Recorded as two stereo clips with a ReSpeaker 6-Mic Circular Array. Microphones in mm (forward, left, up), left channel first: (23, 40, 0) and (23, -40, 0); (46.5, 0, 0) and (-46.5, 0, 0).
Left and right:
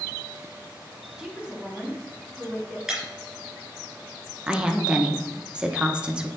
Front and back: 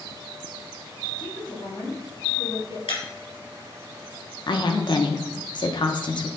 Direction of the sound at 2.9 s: 5° right.